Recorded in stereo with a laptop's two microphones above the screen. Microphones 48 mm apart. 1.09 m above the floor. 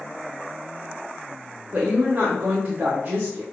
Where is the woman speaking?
30° right (ahead or behind), 0.6 m.